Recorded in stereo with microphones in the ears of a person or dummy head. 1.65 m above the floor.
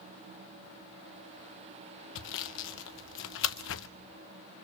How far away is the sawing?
About 0.7 m.